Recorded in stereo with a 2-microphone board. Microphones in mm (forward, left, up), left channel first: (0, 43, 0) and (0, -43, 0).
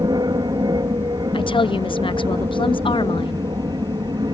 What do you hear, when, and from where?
0.0 s an aircraft: 55° right (ahead or behind)
1.3 s a woman speaking: 80° left